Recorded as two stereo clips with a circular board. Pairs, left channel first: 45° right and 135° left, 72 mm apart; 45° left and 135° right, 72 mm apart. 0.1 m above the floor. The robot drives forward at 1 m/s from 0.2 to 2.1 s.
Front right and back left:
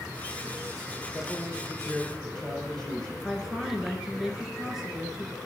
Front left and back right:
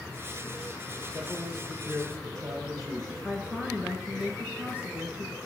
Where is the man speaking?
115° right, 4 m; by 3.1 s 125° right, 4.5 m.